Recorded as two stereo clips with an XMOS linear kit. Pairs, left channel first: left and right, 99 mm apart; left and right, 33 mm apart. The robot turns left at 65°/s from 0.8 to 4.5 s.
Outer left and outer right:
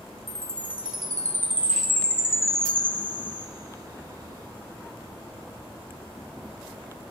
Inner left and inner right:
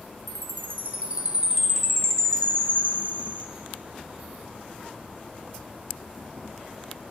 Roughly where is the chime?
Right.